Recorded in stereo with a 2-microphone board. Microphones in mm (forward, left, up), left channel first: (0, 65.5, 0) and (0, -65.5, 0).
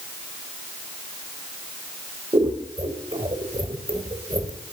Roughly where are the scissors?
Right.